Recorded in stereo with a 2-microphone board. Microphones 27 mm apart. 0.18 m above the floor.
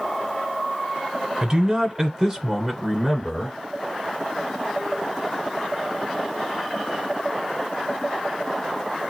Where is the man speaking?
25° right (ahead or behind), 1.1 m; by 3.6 s 15° left (ahead or behind), 1.5 m.